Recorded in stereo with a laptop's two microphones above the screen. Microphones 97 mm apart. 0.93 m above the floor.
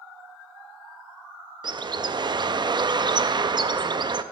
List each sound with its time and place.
1.6 s a bird: 55° right (ahead or behind), 0.6 m